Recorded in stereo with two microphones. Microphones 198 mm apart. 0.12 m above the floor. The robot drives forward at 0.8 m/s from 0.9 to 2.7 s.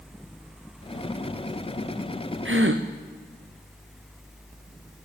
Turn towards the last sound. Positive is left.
turn(degrees=-85)